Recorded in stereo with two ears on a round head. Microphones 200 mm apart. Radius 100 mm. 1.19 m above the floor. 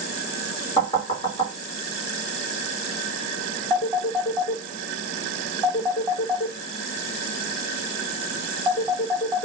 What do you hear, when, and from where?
0.8 s knocking: 20° left (ahead or behind), 1.7 m
3.7 s a phone ringing: 10° left (ahead or behind), 3 m